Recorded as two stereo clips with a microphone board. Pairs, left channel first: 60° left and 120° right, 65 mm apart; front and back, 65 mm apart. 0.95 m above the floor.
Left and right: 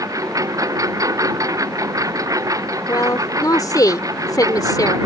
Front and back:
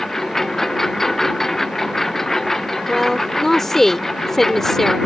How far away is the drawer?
I don't hear a drawer.